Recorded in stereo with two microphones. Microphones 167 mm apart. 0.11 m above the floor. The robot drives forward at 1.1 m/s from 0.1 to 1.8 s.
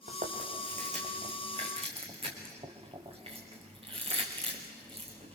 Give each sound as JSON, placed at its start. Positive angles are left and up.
{"t": 0.1, "sound": "chewing", "side_deg": -55, "distance_m": 3.0}